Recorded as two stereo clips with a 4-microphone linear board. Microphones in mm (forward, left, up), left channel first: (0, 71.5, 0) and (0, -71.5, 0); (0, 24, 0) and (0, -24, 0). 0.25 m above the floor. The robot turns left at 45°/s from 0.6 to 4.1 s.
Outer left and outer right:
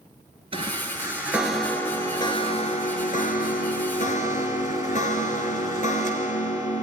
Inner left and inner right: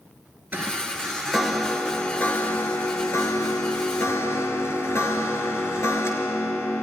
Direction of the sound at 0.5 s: 140° right.